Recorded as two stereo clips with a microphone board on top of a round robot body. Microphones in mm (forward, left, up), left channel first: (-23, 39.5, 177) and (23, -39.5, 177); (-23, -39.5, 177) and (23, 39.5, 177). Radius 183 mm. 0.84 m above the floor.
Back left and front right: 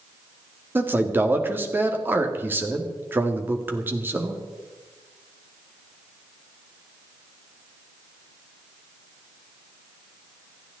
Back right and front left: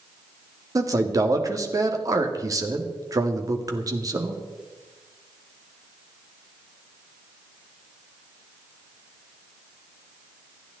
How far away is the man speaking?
About 2.0 m.